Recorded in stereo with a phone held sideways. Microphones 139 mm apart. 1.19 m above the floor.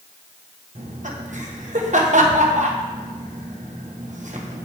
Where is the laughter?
60° right (ahead or behind), 1.3 m.